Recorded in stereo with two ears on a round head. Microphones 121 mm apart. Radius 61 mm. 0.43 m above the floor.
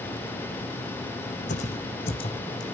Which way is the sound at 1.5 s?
60° left (ahead or behind).